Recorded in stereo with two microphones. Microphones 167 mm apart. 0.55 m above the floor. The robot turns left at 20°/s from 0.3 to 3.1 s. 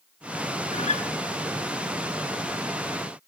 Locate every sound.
0.7 s a guitar: 40° left (ahead or behind), 1.1 m